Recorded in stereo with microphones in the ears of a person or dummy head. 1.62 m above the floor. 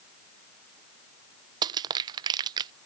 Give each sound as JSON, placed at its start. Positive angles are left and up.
{"t": 1.6, "sound": "crushing", "side_deg": -25}